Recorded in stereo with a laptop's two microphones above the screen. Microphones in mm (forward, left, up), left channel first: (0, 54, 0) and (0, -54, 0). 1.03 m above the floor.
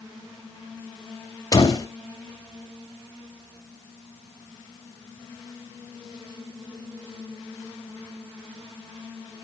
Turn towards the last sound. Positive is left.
turn(degrees=35)  # may be behind; listen again after turning